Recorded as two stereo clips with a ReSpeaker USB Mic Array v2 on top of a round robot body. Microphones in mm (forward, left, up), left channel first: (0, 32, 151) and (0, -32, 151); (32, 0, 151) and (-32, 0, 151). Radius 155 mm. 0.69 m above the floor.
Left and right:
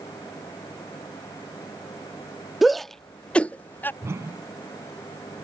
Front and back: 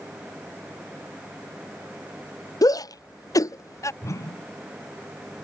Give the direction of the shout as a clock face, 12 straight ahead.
12 o'clock.